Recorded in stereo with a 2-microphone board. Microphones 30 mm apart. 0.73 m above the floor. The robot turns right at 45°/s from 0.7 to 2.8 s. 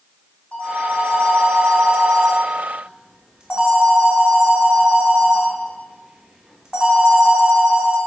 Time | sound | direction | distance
0.5 | a phone ringing | 120° left | 1.4 m